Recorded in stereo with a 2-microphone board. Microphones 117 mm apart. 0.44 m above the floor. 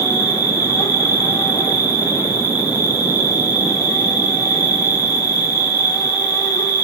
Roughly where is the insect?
Left.